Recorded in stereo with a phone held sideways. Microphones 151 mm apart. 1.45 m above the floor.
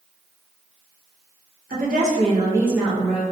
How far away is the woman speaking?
About 0.8 m.